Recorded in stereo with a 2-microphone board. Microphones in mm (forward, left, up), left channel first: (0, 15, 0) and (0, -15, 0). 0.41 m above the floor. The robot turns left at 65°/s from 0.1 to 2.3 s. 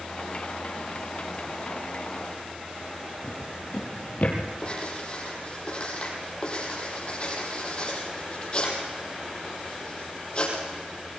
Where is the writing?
35° left (ahead or behind), 5.5 m.